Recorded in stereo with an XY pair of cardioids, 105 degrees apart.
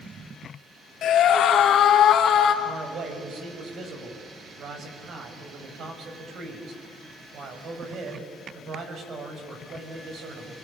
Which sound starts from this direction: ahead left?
A scream, at 1.0 s.